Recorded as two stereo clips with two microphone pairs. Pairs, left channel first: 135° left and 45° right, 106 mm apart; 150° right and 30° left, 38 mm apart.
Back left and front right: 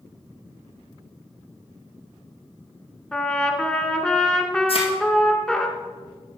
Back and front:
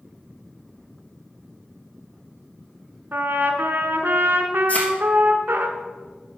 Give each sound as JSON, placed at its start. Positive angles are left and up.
{"t": 3.1, "sound": "a trumpet", "azimuth_deg": 50, "distance_m": 1.0}
{"t": 4.7, "sound": "a thud", "azimuth_deg": 160, "distance_m": 2.0}